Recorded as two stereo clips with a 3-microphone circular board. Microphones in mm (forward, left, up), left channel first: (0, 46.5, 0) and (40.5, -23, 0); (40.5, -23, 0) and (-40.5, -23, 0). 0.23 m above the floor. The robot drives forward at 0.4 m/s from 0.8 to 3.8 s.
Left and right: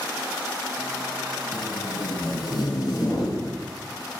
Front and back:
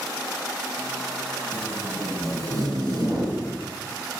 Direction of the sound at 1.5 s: 125° left.